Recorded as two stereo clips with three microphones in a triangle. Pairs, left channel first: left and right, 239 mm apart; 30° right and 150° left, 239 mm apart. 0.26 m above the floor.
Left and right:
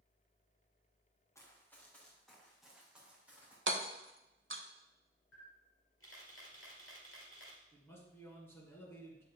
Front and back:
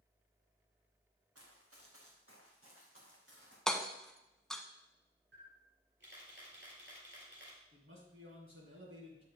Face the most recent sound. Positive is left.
turn(degrees=170)